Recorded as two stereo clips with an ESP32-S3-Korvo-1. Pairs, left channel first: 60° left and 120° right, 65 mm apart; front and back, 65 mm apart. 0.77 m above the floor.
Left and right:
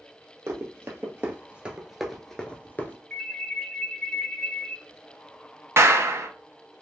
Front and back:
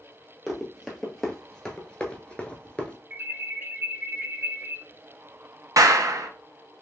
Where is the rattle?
I don't hear a rattle.